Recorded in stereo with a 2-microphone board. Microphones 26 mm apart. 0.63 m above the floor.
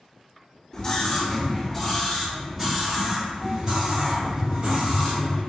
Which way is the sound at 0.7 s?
30° left (ahead or behind).